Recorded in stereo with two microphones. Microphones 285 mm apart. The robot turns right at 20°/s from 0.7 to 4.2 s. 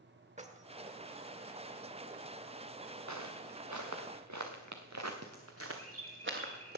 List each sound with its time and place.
0.4 s keys jangling: 25° right (ahead or behind), 0.9 m
3.1 s footsteps: 80° right, 2 m; by 6.8 s 35° right (ahead or behind), 2.5 m
5.8 s a bird: 60° right (ahead or behind), 5 m